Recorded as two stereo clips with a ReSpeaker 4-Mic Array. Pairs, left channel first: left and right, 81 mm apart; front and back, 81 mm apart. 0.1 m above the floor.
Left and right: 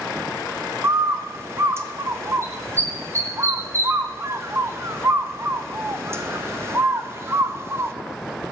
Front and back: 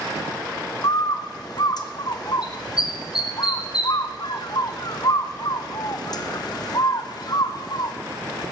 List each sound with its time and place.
0.8 s a bird: 30° right, 1.0 m